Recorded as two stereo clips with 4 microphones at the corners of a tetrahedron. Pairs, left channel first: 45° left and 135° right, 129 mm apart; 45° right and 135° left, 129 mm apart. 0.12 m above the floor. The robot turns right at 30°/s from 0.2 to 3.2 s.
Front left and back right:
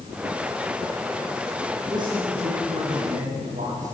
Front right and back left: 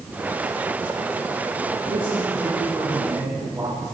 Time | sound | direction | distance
1.9 | a man speaking | 165° left | 6 m